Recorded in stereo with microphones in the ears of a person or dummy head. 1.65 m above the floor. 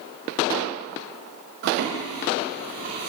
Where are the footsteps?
55° right (ahead or behind), 4 m; by 3.1 s 40° right (ahead or behind), 5 m.